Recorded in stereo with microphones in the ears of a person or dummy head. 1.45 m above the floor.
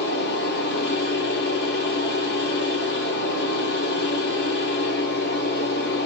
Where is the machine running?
60° left (ahead or behind), 1.5 m.